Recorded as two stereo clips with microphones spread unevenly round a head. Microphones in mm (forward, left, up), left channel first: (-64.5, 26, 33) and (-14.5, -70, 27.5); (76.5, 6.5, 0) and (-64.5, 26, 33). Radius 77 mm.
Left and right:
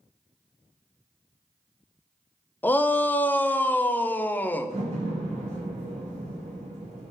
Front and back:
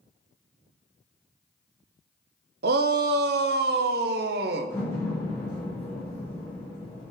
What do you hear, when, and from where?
2.6 s a shout: 170° right, 0.6 m
4.7 s a door slam: 85° right, 3.5 m